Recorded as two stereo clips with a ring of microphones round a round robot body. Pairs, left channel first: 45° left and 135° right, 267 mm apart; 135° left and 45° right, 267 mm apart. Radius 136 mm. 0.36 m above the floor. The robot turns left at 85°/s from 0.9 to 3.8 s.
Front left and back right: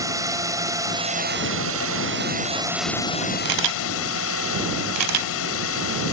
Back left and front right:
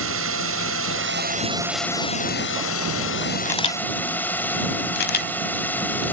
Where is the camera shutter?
140° right; by 6.1 s 170° right.